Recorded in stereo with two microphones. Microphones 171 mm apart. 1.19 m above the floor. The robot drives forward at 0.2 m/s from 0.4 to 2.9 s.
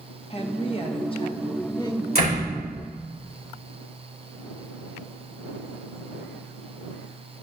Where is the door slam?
60° left (ahead or behind), 3.5 m.